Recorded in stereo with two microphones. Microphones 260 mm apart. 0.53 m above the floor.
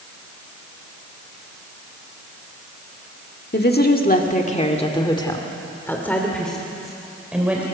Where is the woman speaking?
40° left (ahead or behind), 1.5 m; by 7.6 s 5° right (ahead or behind), 2.5 m.